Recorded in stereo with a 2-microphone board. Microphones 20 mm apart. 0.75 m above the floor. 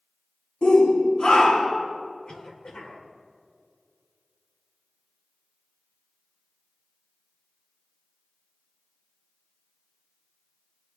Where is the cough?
50° left (ahead or behind), 2.5 m.